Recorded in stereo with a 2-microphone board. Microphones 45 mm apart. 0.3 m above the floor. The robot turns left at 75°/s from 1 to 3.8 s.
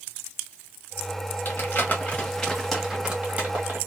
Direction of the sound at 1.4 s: 45° left (ahead or behind).